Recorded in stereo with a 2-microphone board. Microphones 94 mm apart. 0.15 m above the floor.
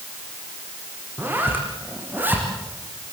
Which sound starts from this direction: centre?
A zipper, at 1.2 s.